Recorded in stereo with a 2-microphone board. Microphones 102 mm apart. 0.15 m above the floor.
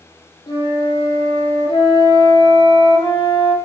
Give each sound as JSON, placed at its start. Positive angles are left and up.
{"t": 0.5, "sound": "a flute", "side_deg": 60, "distance_m": 0.9}